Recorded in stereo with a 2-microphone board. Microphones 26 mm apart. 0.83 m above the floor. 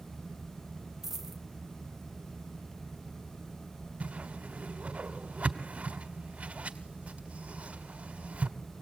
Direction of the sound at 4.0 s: 70° right (ahead or behind).